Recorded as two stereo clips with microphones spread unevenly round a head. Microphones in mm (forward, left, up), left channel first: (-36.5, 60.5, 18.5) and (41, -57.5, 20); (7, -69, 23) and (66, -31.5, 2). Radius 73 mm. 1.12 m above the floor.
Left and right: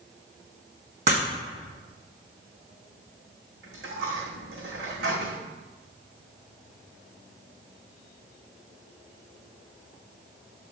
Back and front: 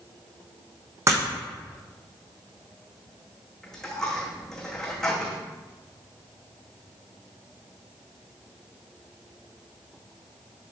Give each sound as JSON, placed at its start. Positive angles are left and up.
{"t": 1.1, "sound": "breaking glass", "azimuth_deg": -15, "distance_m": 4.0}
{"t": 3.6, "sound": "a dropped coin", "azimuth_deg": -70, "distance_m": 3.5}